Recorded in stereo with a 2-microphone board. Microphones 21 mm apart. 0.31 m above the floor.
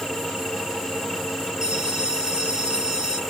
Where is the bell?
35° right (ahead or behind), 8.5 m.